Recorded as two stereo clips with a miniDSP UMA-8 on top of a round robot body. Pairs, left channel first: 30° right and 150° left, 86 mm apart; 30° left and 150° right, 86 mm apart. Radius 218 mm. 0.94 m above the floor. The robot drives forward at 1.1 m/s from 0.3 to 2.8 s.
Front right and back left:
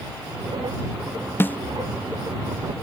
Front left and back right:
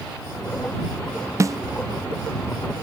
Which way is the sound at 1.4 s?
95° right.